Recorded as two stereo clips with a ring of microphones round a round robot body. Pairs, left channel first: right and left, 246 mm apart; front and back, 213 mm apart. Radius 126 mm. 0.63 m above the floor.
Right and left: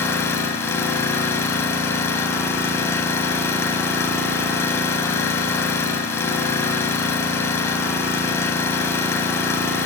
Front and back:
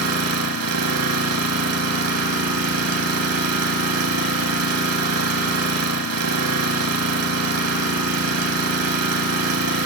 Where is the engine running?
170° right, 0.8 m.